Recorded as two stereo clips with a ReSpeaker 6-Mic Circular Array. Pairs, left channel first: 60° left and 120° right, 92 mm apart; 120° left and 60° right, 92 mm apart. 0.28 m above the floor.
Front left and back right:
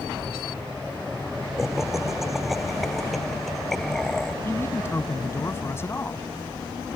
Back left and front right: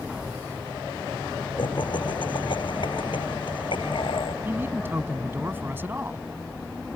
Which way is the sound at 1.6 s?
155° left.